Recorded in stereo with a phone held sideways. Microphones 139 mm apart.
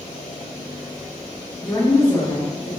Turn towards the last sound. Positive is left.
turn(degrees=15)  # may be behind; listen again after turning